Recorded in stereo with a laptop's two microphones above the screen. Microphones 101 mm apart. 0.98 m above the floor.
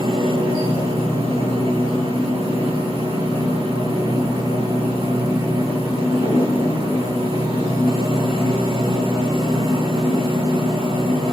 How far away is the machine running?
About 3.5 m.